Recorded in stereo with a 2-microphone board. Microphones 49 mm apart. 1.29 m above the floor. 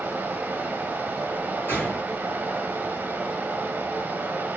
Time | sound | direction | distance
0.0 | running water | 35° right (ahead or behind) | 0.7 m
1.7 | a gunshot | 40° left (ahead or behind) | 2 m